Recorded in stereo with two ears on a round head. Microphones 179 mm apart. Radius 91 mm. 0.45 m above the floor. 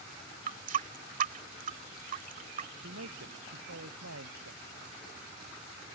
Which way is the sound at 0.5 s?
45° right (ahead or behind).